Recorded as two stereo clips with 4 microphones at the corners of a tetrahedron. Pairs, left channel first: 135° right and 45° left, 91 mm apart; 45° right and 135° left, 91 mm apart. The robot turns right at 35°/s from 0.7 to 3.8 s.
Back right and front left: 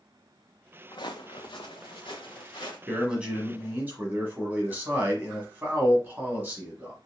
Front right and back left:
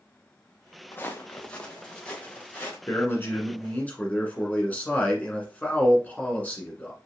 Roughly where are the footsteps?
Right.